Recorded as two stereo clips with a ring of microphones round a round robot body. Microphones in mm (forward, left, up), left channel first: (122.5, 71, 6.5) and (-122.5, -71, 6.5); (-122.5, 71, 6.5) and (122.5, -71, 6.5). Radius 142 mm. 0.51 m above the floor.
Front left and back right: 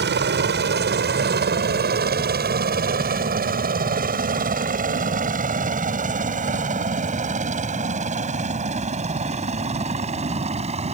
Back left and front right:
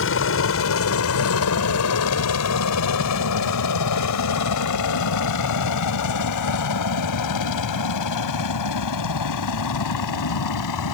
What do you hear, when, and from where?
0.0 s a helicopter: 170° left; by 11.0 s 140° left